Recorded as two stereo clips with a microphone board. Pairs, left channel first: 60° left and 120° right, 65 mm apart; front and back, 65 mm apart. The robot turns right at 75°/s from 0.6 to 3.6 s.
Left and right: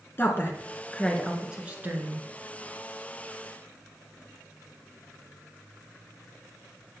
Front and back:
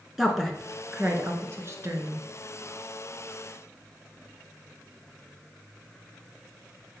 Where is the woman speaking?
100° left, 1.6 m; by 2.3 s 140° right, 1.6 m.